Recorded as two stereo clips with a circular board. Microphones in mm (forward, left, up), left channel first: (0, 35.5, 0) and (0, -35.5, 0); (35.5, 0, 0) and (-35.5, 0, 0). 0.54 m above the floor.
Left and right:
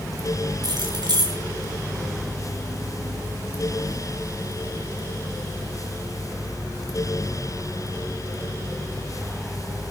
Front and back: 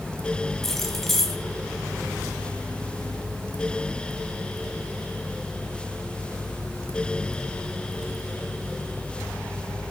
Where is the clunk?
I don't hear a clunk.